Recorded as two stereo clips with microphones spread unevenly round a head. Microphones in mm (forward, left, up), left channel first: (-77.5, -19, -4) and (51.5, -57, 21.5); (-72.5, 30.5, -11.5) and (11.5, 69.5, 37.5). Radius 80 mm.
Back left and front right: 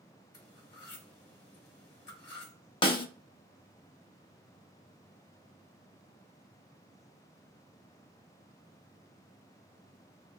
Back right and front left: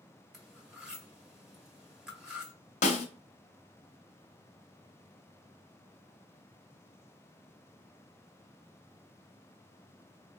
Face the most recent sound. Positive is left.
turn(degrees=-140)